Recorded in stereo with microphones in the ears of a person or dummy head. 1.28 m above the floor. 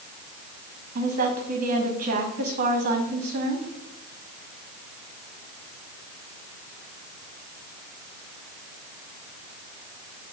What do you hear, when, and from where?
0.9 s a woman speaking: 50° right (ahead or behind), 1.4 m